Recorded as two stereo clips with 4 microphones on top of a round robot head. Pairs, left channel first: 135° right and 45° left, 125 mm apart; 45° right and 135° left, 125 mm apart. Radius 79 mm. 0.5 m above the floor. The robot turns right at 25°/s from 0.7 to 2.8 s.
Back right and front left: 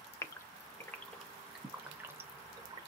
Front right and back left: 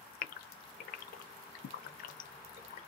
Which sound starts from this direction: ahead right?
A gasp, at 0.2 s.